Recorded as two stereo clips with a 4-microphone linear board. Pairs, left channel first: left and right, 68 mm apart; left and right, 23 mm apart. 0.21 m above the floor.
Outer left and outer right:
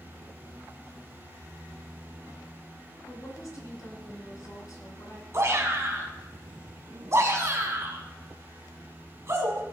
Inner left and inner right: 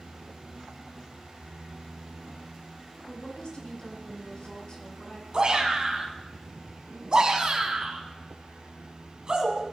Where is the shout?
45° right (ahead or behind), 1.6 m.